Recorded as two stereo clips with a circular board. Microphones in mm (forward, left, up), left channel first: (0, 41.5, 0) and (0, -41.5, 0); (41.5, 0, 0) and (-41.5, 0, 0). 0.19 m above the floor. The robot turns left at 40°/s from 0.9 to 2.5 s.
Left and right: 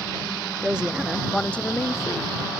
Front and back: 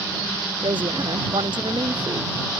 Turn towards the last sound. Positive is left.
turn(degrees=125)